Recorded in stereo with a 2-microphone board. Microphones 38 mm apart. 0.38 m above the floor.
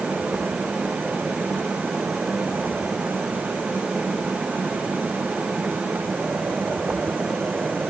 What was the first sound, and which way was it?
Only background noise.